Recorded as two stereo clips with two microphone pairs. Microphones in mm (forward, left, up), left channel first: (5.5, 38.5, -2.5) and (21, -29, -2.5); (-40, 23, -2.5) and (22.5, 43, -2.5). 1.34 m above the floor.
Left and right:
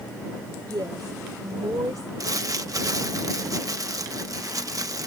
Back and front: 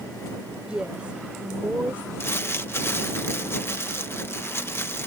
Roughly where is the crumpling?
Right.